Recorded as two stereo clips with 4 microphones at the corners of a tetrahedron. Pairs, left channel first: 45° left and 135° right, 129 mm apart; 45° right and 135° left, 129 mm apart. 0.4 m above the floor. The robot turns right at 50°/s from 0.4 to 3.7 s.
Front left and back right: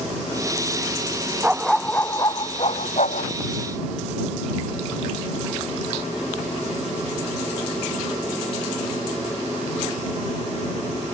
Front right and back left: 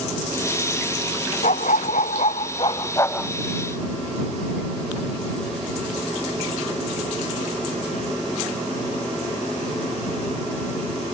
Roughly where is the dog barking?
Ahead right.